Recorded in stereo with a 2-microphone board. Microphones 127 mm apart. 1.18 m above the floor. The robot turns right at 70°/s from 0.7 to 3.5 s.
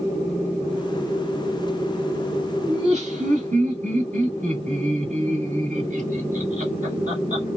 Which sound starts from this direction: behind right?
Laughter, at 2.7 s.